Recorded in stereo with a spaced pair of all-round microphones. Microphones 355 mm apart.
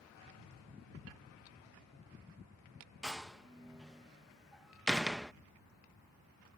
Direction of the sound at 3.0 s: Centre (ahead or behind).